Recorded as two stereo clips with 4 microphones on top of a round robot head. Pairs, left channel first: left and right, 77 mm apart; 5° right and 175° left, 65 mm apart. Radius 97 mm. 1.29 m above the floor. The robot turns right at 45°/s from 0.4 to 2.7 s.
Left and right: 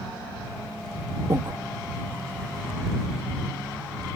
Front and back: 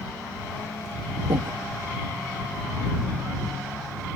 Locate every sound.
1.3 s breathing: 145° right; by 1.6 s 135° right